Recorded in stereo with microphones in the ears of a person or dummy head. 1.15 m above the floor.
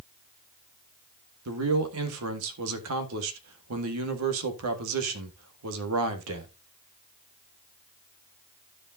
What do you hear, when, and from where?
1.4 s a man speaking: 80° right, 1.7 m